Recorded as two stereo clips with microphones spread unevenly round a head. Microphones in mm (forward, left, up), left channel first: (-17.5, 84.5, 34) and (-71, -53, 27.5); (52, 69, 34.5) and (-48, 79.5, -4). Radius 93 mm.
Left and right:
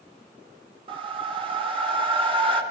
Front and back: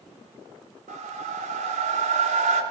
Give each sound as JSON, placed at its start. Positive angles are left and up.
{"t": 0.9, "sound": "a whoosh", "azimuth_deg": -165, "distance_m": 2.0}